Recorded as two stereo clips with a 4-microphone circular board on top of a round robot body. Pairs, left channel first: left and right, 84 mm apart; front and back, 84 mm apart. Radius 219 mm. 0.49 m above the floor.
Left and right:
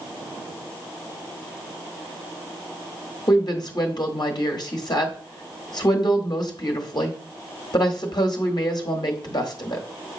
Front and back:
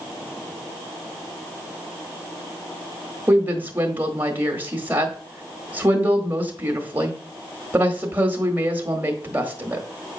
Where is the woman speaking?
115° left, 1.4 m.